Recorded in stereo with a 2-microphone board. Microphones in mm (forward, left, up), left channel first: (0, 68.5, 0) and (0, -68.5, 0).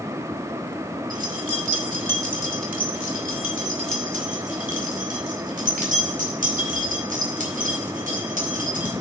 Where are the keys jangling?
65° right (ahead or behind), 1.8 m; by 8.9 s 75° right (ahead or behind), 5.5 m.